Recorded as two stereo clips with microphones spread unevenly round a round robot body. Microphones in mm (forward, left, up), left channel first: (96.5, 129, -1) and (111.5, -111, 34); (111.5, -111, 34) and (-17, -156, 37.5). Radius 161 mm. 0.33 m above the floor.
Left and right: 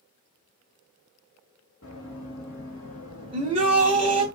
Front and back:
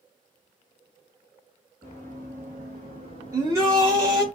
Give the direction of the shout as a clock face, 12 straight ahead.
5 o'clock.